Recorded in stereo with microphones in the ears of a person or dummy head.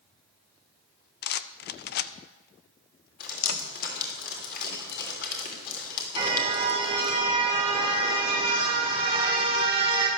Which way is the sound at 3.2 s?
50° left (ahead or behind).